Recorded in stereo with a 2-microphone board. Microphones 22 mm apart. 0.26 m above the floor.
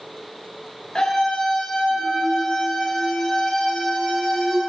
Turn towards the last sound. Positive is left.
turn(degrees=20)  # may be behind; listen again after turning